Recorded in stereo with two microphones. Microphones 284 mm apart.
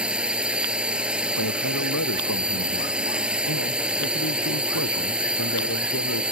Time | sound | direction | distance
0.0 | a drone | 5° right (ahead or behind) | ?
1.4 | a man speaking | 75° left (ahead or behind) | ?